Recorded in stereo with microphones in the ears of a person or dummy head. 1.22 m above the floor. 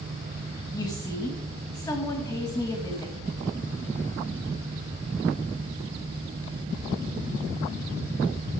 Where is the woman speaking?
20° left (ahead or behind), 1.6 m.